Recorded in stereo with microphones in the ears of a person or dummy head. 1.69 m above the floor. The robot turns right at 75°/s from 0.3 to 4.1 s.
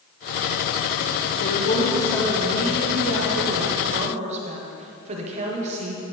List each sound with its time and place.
1.4 s a woman speaking: 120° left, 1.5 m; by 6.0 s 40° right, 1.5 m